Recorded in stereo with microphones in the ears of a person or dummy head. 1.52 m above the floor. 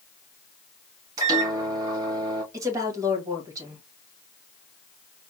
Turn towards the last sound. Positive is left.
turn(degrees=-20)  # may be behind; listen again after turning